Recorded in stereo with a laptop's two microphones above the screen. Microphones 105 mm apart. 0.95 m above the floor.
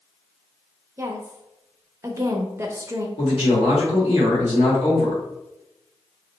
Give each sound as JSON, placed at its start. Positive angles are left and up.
{"t": 1.0, "sound": "a woman speaking", "side_deg": -25, "distance_m": 0.6}
{"t": 3.2, "sound": "a man speaking", "side_deg": 70, "distance_m": 1.8}